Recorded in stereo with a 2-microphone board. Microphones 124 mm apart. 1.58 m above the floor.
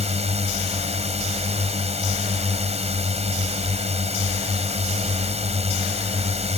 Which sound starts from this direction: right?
A drone, at 0.0 s.